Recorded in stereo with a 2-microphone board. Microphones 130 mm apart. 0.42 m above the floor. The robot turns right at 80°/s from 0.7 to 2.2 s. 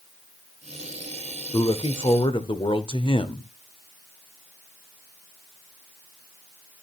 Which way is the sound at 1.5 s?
55° left.